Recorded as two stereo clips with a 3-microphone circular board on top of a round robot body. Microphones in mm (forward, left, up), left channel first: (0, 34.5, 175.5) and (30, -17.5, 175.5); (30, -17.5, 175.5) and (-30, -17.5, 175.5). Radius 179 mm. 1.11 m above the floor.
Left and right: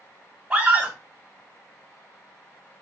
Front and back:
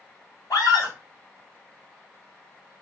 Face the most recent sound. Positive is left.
turn(degrees=10)